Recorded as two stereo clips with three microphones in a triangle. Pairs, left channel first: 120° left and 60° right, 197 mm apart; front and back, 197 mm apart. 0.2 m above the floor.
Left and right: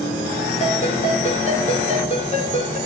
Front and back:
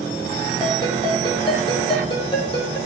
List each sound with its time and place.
0.6 s a ringtone: 65° left, 6 m